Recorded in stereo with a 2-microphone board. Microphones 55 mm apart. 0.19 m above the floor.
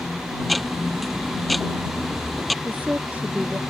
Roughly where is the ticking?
Centre.